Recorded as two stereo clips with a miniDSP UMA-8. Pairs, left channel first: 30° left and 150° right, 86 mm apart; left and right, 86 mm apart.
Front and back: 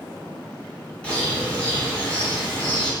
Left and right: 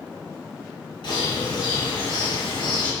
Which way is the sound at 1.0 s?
105° left.